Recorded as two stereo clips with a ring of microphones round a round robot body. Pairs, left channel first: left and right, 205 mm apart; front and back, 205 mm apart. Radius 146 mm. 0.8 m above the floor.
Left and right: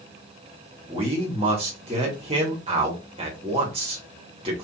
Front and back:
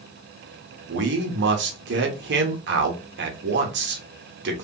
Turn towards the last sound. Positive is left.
turn(degrees=-155)